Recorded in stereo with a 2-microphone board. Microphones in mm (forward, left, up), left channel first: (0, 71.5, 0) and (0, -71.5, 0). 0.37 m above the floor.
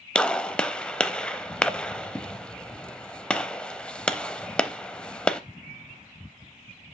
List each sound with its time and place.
0.1 s a gunshot: 5° left (ahead or behind), 0.6 m